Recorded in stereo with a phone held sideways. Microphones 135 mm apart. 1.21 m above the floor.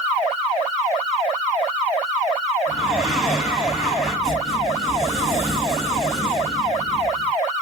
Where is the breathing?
5° right (ahead or behind), 2.5 m.